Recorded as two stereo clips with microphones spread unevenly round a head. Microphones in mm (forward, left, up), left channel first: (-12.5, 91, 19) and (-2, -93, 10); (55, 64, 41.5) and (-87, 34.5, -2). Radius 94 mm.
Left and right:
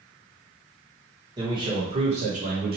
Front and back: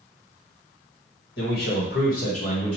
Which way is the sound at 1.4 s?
20° right.